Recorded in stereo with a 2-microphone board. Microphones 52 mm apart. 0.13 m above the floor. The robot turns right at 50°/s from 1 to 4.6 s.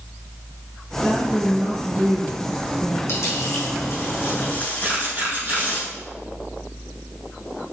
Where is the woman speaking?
155° left, 3.5 m; by 3.0 s 105° right, 3.5 m.